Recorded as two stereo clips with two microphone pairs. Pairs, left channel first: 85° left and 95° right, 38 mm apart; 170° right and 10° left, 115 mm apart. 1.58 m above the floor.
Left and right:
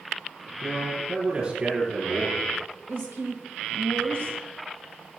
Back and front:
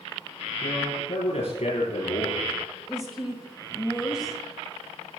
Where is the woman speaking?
80° right, 1.6 m.